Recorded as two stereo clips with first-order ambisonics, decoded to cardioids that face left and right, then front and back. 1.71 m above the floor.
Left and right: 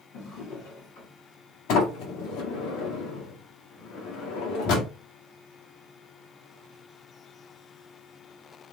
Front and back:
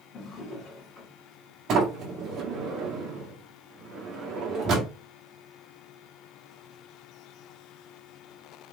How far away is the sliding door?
About 1.4 m.